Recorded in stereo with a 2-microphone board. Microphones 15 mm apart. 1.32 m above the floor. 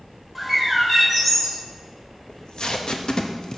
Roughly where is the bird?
Centre.